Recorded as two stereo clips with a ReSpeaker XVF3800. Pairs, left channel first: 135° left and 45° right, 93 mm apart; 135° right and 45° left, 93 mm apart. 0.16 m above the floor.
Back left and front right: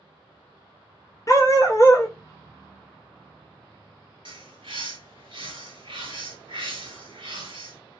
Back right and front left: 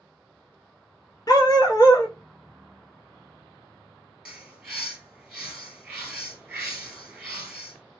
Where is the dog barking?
175° right, 0.7 m.